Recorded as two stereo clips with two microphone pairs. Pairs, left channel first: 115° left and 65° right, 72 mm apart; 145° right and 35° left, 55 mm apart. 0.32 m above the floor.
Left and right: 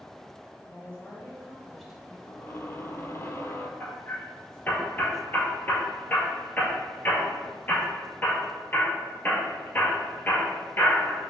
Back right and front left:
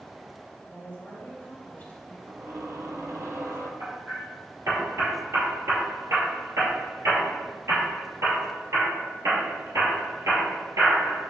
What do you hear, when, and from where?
0.7 s a woman speaking: 160° left, 1.8 m; by 2.2 s 135° right, 1.6 m
2.3 s a squeak: 60° left, 0.8 m
3.8 s hammering: 50° left, 2 m